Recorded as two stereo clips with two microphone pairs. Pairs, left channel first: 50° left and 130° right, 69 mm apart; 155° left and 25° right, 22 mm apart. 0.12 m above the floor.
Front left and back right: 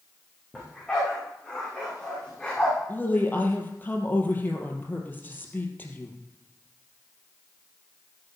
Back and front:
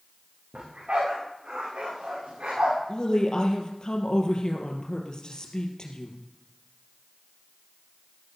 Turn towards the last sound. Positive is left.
turn(degrees=110)